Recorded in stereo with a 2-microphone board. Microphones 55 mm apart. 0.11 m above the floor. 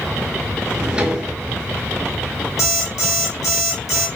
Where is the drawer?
15° right (ahead or behind), 0.7 m.